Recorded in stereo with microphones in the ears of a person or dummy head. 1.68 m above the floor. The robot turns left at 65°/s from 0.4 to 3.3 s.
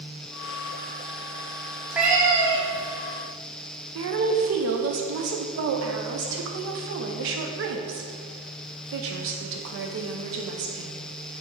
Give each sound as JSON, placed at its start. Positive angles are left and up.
{"t": 1.9, "sound": "a cat meowing", "azimuth_deg": -5, "distance_m": 1.2}
{"t": 4.0, "sound": "a woman speaking", "side_deg": -65, "distance_m": 0.8}